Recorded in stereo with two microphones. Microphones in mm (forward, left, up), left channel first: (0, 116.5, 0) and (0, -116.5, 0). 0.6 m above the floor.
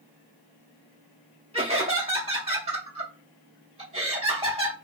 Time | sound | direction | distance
1.5 | laughter | 25° right (ahead or behind) | 0.7 m